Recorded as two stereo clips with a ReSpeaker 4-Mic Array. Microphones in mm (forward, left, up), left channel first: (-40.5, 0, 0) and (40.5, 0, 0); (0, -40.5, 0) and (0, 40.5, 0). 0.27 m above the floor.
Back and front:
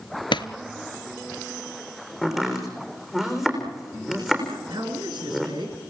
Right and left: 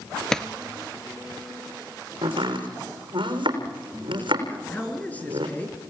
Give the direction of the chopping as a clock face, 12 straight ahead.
9 o'clock.